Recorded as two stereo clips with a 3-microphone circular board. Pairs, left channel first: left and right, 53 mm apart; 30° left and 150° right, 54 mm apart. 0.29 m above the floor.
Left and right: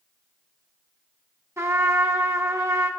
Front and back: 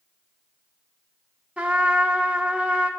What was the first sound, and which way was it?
A trumpet, 80° right.